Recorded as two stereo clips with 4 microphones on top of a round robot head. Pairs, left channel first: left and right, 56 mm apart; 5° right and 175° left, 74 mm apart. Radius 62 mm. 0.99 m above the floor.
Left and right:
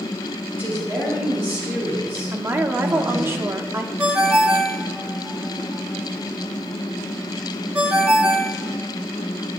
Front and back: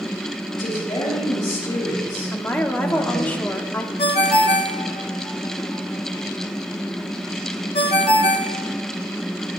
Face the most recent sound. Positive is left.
turn(degrees=-20)